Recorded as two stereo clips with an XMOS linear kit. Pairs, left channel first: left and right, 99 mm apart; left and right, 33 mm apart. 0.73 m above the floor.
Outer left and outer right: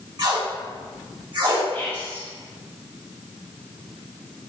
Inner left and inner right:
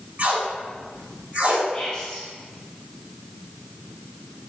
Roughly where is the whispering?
Left.